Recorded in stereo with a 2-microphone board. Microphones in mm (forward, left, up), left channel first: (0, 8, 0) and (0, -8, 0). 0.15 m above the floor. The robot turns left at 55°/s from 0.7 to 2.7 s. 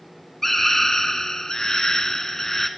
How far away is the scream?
About 1.4 m.